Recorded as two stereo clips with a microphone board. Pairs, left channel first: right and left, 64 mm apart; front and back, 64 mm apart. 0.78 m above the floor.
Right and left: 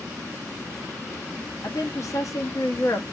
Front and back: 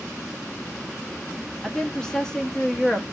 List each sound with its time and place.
1.6 s a woman speaking: 80° right, 1.0 m